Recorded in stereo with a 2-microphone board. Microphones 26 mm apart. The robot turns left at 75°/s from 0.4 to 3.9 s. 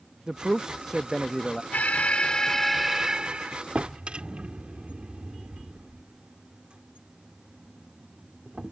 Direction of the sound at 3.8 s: 60° right (ahead or behind).